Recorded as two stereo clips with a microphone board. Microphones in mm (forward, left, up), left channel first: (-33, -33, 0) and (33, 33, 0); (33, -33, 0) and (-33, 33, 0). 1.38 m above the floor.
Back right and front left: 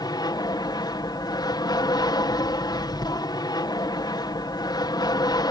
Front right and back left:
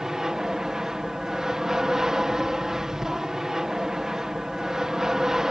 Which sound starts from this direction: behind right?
An aircraft, at 0.0 s.